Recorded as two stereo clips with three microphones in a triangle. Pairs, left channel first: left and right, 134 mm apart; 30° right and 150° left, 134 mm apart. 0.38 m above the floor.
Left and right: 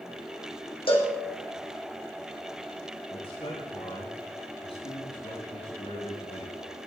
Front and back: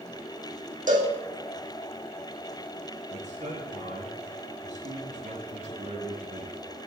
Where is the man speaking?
130° left, 5 m.